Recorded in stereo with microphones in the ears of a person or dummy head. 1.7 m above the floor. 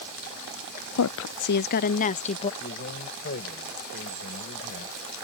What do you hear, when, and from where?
1.0 s a woman speaking: 85° left; by 2.5 s 35° left (ahead or behind)
2.6 s a man speaking: 50° left (ahead or behind)